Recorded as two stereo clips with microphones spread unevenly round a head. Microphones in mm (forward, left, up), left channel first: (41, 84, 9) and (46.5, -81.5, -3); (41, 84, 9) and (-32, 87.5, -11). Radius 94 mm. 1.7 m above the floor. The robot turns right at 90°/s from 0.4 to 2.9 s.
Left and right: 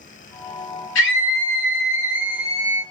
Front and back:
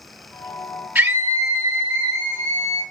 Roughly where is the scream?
Left.